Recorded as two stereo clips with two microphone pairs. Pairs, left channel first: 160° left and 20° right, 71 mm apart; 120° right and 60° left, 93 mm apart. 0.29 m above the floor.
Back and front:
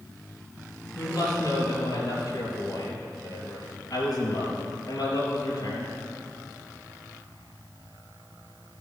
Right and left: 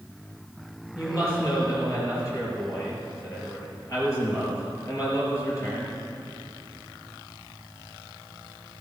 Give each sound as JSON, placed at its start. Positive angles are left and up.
{"t": 0.9, "sound": "a woman speaking", "azimuth_deg": -175, "distance_m": 4.5}